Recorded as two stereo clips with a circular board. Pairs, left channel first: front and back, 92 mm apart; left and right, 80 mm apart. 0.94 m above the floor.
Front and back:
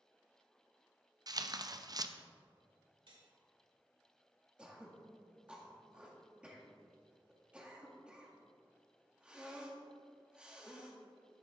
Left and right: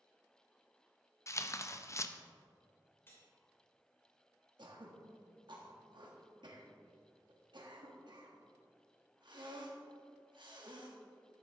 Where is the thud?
No thud in this recording.